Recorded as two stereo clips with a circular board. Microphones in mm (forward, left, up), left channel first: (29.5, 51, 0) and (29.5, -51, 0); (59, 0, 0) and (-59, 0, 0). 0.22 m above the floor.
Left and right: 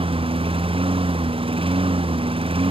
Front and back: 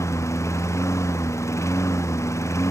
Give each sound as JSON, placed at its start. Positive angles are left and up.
{"t": 0.0, "sound": "a lawn mower", "azimuth_deg": -65}